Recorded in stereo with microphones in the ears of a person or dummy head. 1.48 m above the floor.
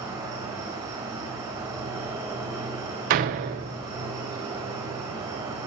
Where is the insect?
15° right (ahead or behind), 3 m.